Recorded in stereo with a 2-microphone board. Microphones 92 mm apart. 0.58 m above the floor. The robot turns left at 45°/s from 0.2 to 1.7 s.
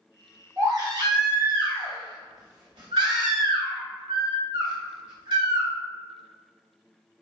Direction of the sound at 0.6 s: 40° right.